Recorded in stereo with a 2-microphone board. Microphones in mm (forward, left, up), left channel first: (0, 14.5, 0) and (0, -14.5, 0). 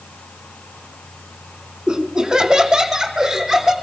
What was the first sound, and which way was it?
Laughter, 25° right (ahead or behind).